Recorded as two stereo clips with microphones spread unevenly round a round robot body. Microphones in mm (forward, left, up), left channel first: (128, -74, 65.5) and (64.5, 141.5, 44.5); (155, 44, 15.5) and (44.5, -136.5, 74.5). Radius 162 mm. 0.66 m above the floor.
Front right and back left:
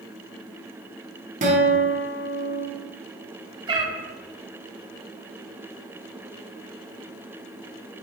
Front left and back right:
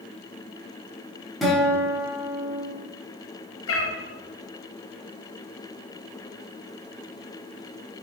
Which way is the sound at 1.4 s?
125° left.